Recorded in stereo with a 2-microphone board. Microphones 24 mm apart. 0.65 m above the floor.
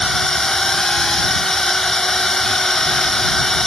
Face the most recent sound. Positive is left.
turn(degrees=15)  # may be behind; listen again after turning